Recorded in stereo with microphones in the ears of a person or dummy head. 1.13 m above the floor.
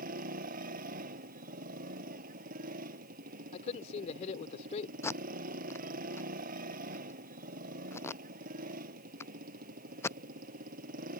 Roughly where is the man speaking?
Left.